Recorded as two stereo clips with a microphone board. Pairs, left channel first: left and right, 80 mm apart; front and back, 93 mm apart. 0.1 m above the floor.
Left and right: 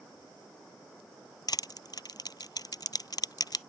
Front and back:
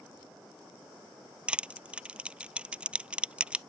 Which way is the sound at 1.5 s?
105° left.